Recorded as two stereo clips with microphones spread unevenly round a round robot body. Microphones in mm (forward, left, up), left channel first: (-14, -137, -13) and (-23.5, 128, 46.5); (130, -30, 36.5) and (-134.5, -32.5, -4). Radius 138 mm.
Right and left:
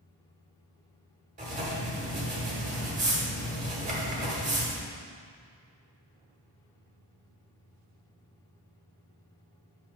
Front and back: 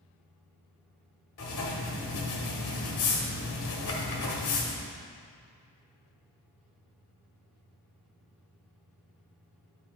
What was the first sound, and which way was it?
Writing, 25° left.